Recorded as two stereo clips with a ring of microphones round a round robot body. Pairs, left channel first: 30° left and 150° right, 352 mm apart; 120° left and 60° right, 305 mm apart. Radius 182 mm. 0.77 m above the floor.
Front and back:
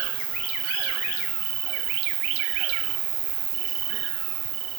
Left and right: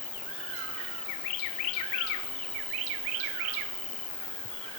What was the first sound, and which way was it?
An insect, 155° right.